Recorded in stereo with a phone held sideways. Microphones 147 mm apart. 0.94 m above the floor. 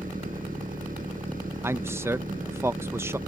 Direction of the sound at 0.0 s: 85° right.